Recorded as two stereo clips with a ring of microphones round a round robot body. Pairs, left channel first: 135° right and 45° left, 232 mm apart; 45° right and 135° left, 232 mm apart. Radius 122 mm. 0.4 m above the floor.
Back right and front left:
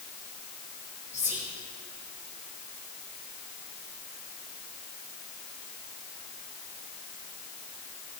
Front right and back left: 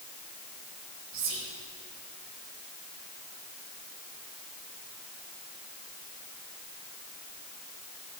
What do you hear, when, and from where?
1.1 s whispering: 125° left, 2.0 m